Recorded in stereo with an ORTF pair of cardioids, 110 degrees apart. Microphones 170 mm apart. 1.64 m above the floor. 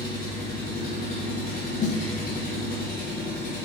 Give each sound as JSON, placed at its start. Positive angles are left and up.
{"t": 0.0, "sound": "an engine running", "azimuth_deg": 60, "distance_m": 3.0}
{"t": 1.8, "sound": "a snare drum", "azimuth_deg": 45, "distance_m": 1.2}